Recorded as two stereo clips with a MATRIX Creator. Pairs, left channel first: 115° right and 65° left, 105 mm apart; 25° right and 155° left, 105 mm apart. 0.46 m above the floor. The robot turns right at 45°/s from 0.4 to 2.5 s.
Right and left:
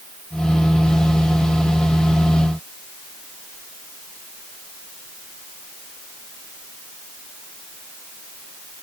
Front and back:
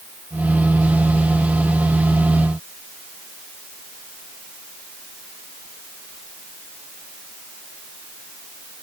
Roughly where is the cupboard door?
No cupboard door in this recording.